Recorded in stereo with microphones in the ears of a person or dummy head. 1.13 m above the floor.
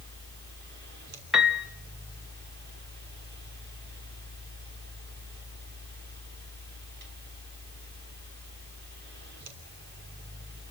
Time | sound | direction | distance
0.0 | a fan | 60° right (ahead or behind) | 3 m
1.3 | a piano | 5° right (ahead or behind) | 1.2 m